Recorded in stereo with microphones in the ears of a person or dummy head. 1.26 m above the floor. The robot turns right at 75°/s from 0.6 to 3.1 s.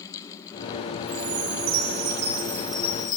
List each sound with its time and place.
1.1 s a chime: 120° right, 7.5 m; by 3.2 s 30° left, 7.5 m